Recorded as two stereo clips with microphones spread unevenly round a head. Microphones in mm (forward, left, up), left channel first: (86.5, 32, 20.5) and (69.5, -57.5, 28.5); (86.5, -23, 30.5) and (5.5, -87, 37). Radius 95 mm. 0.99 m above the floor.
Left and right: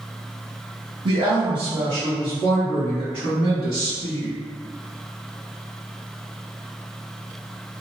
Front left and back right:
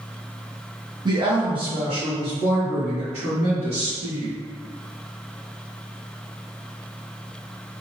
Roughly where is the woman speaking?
Right.